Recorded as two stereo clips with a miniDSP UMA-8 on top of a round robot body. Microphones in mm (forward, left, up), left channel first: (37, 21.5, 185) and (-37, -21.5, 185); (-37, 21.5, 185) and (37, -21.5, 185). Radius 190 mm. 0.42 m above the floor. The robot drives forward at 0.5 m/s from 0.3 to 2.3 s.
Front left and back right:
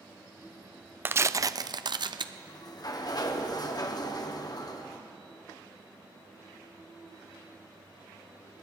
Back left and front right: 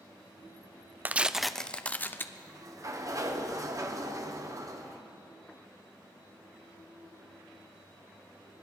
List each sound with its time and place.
1.1 s tearing paper: 90° right, 0.6 m; by 2.2 s 150° right, 0.8 m
2.4 s a sliding door: 5° left, 1.5 m